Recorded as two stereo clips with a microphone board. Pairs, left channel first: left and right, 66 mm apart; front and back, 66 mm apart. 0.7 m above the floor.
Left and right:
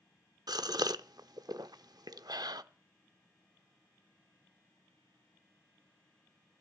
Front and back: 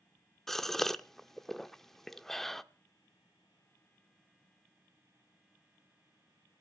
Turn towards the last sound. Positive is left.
turn(degrees=-85)